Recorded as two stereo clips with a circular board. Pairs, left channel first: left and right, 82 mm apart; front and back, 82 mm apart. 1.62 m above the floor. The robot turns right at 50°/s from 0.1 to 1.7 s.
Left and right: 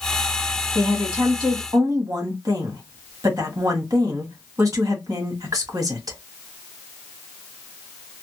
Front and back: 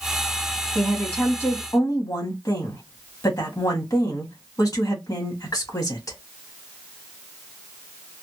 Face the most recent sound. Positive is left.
turn(degrees=-45)